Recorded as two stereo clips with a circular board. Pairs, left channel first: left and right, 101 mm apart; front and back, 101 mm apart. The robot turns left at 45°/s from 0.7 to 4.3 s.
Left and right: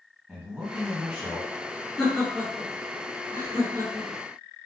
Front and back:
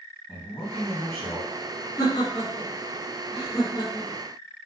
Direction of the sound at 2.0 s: 5° left.